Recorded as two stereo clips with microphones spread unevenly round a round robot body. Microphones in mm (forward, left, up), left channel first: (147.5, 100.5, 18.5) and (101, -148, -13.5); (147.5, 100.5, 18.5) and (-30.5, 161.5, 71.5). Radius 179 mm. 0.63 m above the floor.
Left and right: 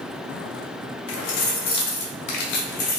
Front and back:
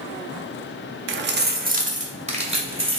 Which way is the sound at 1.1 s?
135° left.